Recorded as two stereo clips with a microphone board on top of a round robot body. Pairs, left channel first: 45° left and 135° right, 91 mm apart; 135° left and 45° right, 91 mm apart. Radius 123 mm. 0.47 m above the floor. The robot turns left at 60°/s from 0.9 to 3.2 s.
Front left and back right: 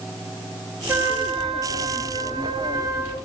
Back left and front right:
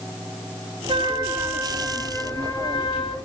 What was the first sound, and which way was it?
A trumpet, 70° right.